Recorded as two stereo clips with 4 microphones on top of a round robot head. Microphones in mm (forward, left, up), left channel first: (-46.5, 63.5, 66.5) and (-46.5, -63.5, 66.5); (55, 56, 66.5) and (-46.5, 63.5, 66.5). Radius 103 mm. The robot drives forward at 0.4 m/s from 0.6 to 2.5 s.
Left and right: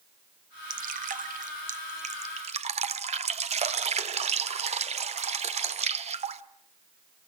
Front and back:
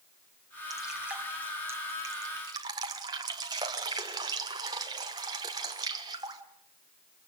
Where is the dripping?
95° right, 1.1 m; by 6.4 s 125° right, 1.4 m.